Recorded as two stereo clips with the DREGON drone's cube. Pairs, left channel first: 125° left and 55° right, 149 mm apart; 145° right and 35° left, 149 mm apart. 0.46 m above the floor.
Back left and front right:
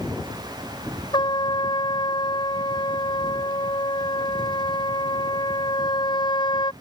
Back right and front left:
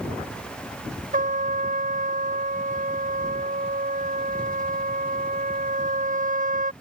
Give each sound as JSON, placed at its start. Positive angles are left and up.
{"t": 1.1, "sound": "a trumpet", "azimuth_deg": 65}